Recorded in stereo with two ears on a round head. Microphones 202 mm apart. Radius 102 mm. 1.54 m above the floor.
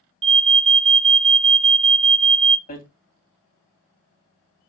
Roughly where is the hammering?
Left.